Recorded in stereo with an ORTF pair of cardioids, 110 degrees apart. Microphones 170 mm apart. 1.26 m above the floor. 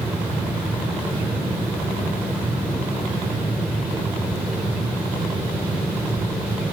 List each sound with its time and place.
0.0 s a fan: 10° right, 1.0 m